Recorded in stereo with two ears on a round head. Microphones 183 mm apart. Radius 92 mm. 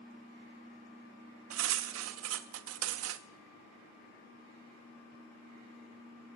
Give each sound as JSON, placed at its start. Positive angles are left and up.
{"t": 1.5, "sound": "cutlery clinking", "side_deg": -75, "distance_m": 0.5}